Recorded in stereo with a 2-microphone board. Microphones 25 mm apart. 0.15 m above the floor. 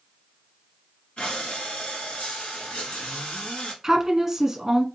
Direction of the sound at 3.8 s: 20° right (ahead or behind).